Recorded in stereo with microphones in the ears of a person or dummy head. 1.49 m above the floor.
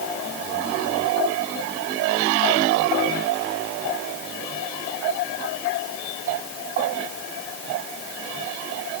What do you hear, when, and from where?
Only background noise.